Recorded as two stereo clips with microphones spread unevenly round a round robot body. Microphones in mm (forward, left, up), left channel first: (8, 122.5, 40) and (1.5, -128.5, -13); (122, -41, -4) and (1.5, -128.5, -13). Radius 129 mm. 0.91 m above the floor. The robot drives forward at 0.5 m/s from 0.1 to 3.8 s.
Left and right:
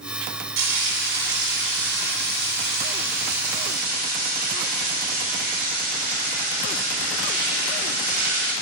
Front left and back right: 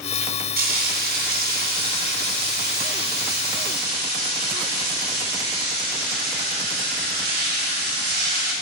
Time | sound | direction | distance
0.6 | frying | 135° right | 3 m